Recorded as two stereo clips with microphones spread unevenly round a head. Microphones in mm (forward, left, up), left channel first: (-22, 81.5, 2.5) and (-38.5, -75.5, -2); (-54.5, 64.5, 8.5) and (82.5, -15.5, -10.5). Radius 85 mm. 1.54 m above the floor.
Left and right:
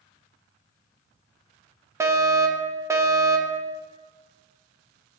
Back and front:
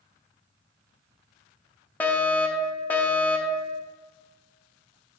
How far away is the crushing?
No crushing in this recording.